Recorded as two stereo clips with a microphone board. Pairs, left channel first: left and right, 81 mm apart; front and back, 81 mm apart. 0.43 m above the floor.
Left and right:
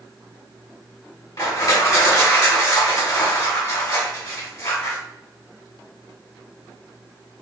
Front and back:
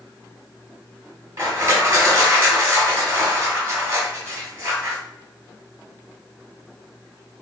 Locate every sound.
1.4 s crushing: 125° left, 1.7 m